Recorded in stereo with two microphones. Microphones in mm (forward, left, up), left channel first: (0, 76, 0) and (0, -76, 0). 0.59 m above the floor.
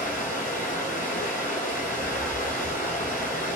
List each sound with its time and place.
0.0 s running water: 60° left (ahead or behind), 2 m